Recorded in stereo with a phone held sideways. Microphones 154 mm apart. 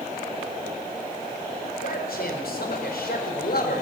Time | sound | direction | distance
1.8 | a man speaking | 80° left | 5 m